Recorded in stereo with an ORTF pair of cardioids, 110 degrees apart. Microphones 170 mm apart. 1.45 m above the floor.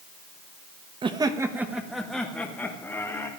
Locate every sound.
1.0 s laughter: 30° right, 1.1 m; by 3.3 s 15° left, 2.5 m